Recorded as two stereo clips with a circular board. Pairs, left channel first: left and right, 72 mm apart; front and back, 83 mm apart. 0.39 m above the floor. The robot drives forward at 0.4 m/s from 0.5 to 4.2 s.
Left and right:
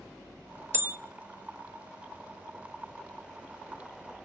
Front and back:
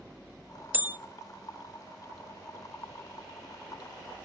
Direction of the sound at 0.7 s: 125° right.